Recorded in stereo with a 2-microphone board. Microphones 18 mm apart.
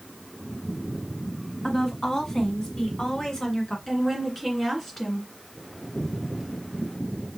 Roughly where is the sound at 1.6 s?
Left.